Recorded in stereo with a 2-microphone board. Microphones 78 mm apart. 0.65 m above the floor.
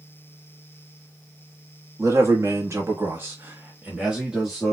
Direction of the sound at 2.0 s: 45° right (ahead or behind).